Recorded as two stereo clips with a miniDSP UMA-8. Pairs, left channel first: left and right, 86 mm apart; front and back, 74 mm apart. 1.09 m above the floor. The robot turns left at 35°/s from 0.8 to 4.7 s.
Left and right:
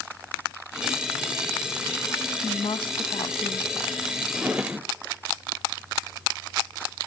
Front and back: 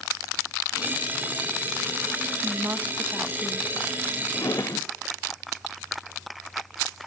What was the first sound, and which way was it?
A woman speaking, 125° left.